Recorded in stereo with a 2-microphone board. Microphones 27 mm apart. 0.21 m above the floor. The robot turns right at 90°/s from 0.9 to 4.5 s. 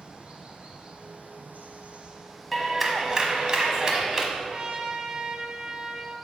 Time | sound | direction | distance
0.0 | running water | 145° right | 1.3 m
2.5 | a clap | 170° left | 1.0 m
4.3 | a trumpet | 40° right (ahead or behind) | 0.8 m